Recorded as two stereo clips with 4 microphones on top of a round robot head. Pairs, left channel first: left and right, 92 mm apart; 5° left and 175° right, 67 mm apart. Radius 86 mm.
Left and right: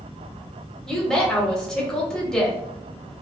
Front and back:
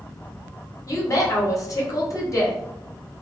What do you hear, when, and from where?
0.9 s a woman speaking: 10° left, 1.2 m